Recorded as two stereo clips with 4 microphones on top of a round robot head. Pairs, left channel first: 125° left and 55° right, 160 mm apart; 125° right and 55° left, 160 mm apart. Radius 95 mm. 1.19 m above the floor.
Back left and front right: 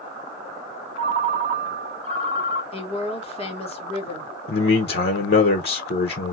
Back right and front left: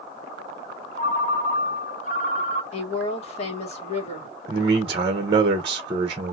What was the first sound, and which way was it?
A ringtone, 100° right.